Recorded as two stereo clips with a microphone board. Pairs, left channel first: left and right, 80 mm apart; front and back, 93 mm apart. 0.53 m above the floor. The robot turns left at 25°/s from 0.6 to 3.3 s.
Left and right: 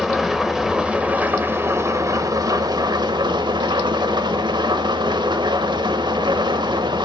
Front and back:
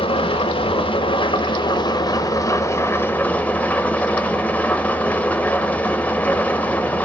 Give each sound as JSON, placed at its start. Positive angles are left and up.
{"t": 0.0, "sound": "an engine running", "azimuth_deg": -5, "distance_m": 1.0}